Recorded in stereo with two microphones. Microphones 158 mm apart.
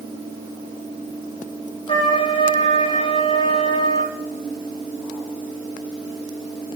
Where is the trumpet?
35° left (ahead or behind), 7 m.